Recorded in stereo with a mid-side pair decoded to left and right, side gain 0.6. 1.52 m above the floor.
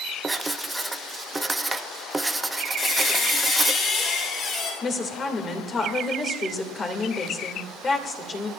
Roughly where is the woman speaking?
Ahead left.